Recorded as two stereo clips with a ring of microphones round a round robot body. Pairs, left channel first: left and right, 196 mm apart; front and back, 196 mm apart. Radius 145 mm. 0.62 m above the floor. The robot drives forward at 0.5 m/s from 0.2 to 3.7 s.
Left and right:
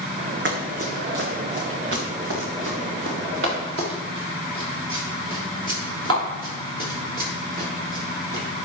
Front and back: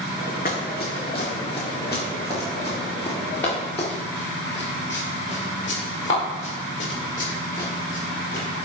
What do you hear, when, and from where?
0.5 s running footsteps: 65° right, 1.8 m; by 8.4 s 75° right, 7.5 m